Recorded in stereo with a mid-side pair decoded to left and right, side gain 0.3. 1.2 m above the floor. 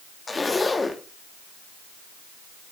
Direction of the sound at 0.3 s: 35° left.